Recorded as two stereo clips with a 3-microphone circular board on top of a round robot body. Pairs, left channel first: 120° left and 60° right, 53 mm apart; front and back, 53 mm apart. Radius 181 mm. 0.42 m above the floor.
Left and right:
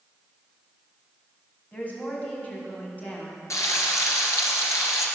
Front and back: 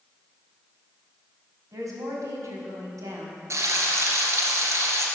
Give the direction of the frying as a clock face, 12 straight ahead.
7 o'clock.